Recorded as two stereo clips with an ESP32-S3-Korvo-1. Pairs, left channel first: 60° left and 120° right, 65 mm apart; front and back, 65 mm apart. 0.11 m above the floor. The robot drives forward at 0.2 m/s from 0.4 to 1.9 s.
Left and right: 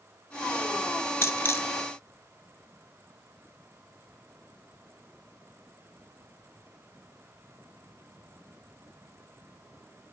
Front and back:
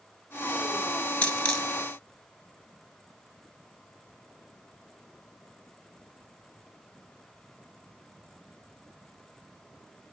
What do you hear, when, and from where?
1.2 s a dropped coin: 60° left, 0.5 m; by 1.7 s 75° left, 0.5 m